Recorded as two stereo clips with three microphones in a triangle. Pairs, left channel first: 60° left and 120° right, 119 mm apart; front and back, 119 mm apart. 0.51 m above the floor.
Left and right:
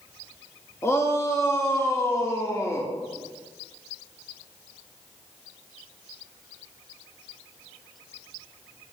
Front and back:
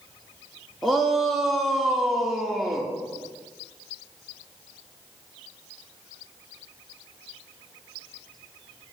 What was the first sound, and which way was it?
A shout, 90° left.